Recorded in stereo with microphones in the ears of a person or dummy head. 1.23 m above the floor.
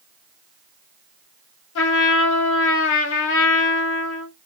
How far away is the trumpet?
About 2 m.